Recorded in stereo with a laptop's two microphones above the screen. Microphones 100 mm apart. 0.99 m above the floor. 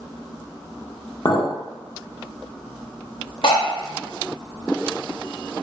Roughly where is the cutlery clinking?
Left.